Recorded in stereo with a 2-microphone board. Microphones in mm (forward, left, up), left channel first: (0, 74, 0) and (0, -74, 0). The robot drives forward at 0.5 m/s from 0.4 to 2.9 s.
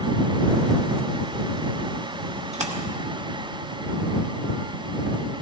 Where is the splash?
50° right (ahead or behind), 1.2 m; by 2.8 s 45° right (ahead or behind), 1.3 m.